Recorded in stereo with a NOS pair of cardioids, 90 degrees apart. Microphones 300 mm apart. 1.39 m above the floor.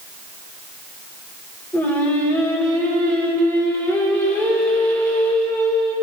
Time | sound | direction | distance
1.7 | singing | 5° left | 1.9 m